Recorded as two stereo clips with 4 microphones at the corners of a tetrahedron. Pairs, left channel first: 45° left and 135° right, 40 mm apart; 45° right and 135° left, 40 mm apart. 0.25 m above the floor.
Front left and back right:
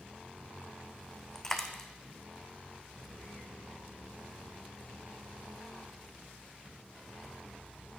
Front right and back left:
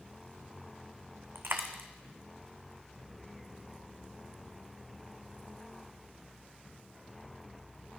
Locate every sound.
1.4 s a dropped coin: 120° left, 1.0 m